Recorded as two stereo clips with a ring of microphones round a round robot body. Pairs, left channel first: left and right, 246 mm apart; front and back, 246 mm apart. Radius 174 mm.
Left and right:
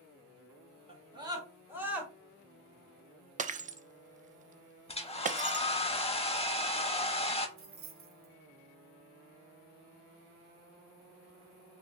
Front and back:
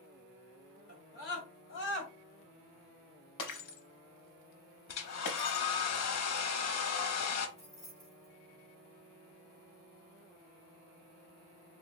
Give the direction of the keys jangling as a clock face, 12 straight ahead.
2 o'clock.